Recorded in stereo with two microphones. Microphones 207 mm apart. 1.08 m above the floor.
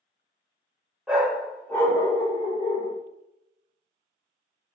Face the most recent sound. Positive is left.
turn(degrees=35)  # may be behind; listen again after turning